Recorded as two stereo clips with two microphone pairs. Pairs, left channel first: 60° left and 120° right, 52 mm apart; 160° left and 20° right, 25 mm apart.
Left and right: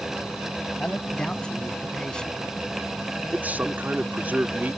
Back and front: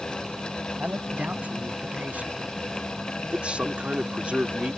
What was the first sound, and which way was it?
A man speaking, 10° right.